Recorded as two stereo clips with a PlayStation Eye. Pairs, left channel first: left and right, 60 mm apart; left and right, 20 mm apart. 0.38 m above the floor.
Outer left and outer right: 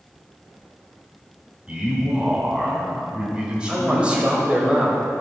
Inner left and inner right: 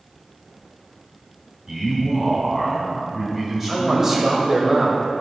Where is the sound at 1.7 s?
15° right (ahead or behind), 3.5 m.